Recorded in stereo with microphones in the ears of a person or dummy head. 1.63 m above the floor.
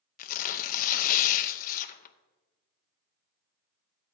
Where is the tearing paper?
45° left (ahead or behind), 0.7 m.